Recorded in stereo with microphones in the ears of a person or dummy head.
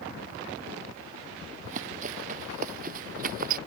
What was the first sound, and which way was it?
Running footsteps, 45° right (ahead or behind).